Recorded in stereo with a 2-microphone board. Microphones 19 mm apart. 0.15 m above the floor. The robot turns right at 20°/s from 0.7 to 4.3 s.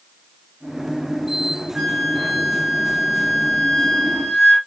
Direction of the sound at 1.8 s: 55° right.